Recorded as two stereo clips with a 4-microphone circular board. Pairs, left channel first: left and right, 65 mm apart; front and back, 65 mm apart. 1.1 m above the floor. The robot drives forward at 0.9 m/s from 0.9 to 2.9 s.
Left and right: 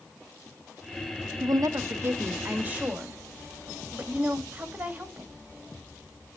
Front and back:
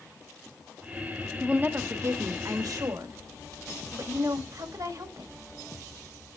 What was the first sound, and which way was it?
A woman speaking, 105° right.